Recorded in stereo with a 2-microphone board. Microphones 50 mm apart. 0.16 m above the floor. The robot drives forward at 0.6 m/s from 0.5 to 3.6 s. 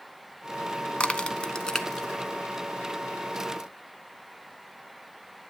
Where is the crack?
20° left (ahead or behind), 0.6 m; by 2.1 s 10° left (ahead or behind), 0.9 m.